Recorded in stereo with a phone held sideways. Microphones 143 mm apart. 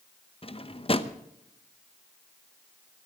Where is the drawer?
40° left (ahead or behind), 0.9 m.